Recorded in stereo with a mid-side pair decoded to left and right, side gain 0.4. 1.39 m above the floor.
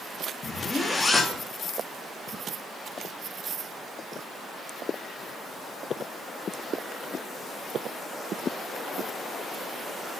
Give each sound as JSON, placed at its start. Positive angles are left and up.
{"t": 0.4, "sound": "a zipper", "azimuth_deg": 30, "distance_m": 2.5}